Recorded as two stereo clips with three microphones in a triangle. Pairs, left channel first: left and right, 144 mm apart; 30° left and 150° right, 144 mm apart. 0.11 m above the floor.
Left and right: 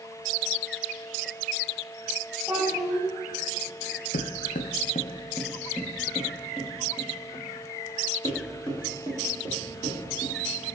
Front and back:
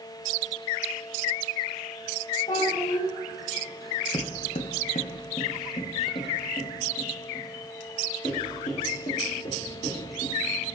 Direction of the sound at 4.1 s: 85° left.